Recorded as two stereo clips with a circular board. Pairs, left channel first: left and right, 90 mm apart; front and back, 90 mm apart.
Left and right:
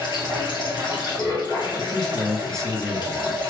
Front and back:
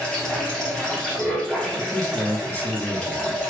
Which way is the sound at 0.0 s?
80° left.